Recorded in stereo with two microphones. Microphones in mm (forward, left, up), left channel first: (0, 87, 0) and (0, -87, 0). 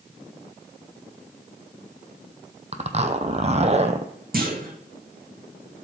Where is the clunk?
60° right (ahead or behind), 2.5 m.